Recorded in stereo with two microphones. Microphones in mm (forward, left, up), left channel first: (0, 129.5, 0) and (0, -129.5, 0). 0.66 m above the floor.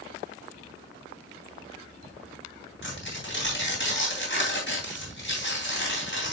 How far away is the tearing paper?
About 3 m.